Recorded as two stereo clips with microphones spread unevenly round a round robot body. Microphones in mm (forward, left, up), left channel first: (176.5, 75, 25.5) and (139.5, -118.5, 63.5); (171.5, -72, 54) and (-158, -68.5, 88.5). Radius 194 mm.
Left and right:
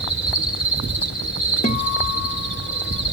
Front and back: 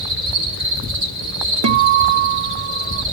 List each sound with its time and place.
0.0 s an insect: 135° left, 9 m
1.6 s a guitar: 130° left, 0.6 m